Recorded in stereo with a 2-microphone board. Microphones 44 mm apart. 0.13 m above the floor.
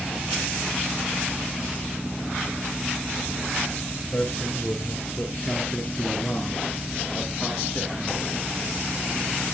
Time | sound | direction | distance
4.1 | a man speaking | 55° left (ahead or behind) | 3 m